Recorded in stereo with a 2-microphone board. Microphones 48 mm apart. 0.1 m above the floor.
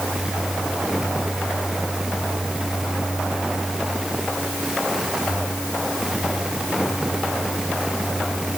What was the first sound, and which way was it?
Only background noise.